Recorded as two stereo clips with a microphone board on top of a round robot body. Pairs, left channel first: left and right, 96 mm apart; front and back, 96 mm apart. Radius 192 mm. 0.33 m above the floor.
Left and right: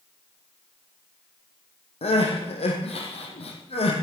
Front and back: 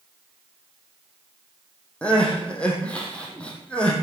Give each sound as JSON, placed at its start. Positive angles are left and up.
{"t": 2.0, "sound": "crying", "azimuth_deg": 80, "distance_m": 3.0}